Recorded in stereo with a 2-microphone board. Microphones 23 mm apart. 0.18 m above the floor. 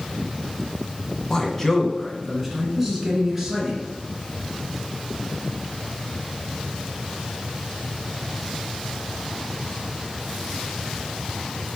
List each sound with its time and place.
1.3 s a man speaking: 30° left (ahead or behind), 1.2 m; by 3.8 s 15° right (ahead or behind), 2.5 m